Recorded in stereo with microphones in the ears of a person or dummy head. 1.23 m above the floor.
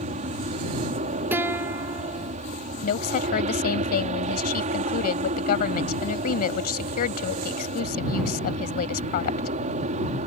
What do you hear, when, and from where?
0.0 s an aircraft: 40° right (ahead or behind)
1.3 s a guitar: 15° right (ahead or behind)
2.8 s a woman speaking: 55° left (ahead or behind)